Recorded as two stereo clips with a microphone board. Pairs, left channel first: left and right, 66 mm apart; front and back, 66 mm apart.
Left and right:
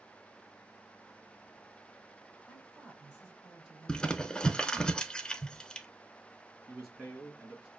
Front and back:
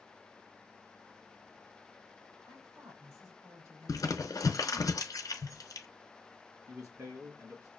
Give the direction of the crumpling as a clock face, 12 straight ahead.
12 o'clock.